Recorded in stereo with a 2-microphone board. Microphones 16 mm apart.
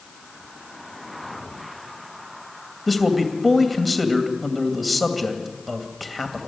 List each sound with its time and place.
2.9 s a man speaking: centre (ahead or behind), 2.5 m